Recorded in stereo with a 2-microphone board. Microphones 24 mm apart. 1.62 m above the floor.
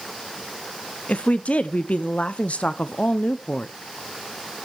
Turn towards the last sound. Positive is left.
turn(degrees=60)  # may be behind; listen again after turning